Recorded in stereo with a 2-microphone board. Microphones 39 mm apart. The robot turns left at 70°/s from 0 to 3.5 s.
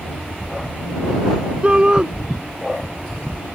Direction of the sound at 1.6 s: 30° right (ahead or behind).